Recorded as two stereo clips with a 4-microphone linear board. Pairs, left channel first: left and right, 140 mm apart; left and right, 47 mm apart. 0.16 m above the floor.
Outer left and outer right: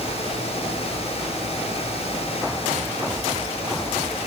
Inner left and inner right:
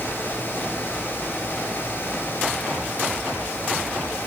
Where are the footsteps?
No footsteps in this recording.